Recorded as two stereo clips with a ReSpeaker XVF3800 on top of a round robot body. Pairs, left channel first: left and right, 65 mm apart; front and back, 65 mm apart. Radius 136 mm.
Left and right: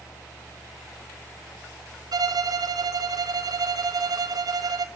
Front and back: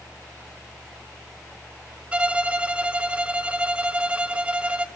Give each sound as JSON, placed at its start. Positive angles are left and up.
{"t": 2.1, "sound": "a violin", "azimuth_deg": -105, "distance_m": 1.0}